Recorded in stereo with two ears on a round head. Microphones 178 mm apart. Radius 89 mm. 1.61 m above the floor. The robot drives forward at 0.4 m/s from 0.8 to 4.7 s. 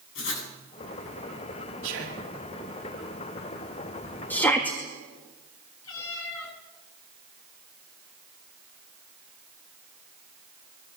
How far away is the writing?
About 8.5 m.